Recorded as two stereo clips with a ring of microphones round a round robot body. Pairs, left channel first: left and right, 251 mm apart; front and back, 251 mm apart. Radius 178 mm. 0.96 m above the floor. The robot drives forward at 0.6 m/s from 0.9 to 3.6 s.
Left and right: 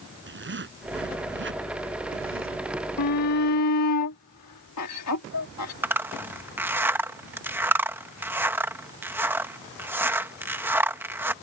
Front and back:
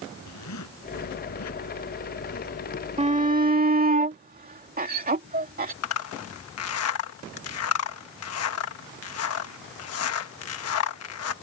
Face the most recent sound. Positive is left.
turn(degrees=-10)